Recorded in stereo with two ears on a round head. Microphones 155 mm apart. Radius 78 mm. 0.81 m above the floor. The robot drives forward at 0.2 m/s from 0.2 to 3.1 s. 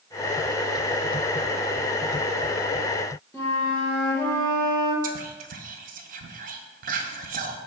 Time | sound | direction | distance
3.3 | a flute | 15° left (ahead or behind) | 1.0 m
5.0 | whispering | 55° right (ahead or behind) | 0.6 m